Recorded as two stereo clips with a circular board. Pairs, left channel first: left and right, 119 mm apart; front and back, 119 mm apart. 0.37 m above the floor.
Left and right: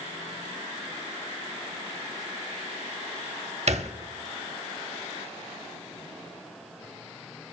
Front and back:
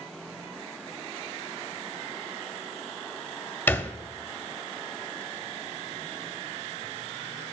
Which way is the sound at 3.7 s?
70° right.